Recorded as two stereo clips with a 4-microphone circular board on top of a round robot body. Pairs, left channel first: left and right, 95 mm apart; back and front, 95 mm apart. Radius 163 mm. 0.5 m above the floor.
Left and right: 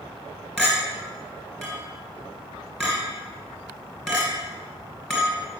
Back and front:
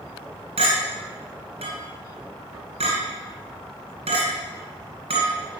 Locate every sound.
0.6 s a clink: 5° left, 2 m